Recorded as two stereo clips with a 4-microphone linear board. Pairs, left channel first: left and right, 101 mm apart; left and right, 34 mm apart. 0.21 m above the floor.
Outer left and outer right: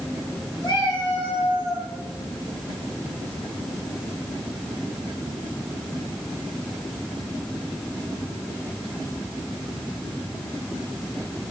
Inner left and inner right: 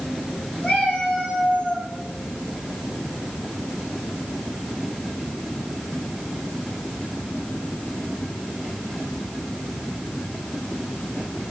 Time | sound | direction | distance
0.6 | a cat meowing | 45° left (ahead or behind) | 2.5 m